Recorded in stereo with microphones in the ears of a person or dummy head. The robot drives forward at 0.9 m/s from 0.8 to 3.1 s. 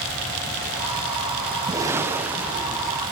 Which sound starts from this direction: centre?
A whoosh, at 1.7 s.